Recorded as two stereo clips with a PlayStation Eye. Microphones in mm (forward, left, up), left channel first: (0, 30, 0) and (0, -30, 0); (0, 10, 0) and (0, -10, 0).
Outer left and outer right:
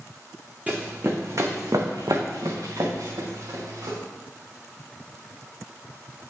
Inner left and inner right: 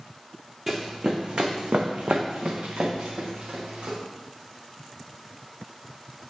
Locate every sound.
0.7 s running footsteps: 25° right (ahead or behind), 1.0 m; by 4.0 s 60° right (ahead or behind), 2.5 m